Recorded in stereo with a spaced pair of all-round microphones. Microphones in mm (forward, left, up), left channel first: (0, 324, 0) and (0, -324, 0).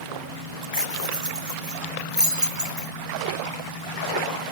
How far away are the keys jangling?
About 0.6 m.